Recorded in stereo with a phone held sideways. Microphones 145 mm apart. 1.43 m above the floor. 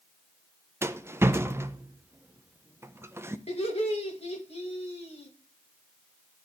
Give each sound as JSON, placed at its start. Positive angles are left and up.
{"t": 0.8, "sound": "a rattle", "side_deg": -20, "distance_m": 0.5}
{"t": 3.5, "sound": "laughter", "side_deg": 50, "distance_m": 2.5}